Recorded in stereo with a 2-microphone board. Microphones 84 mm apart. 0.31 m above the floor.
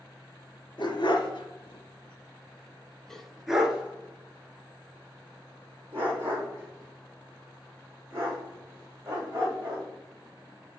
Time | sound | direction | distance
0.8 | a dog barking | 70° left (ahead or behind) | 1.3 m